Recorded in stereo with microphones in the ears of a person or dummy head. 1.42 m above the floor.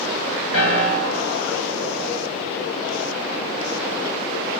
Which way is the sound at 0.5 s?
80° left.